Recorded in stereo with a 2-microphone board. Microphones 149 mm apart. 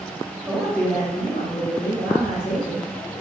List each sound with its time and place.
0.5 s a man speaking: 10° right (ahead or behind), 0.8 m; by 3.2 s 80° left, 2.5 m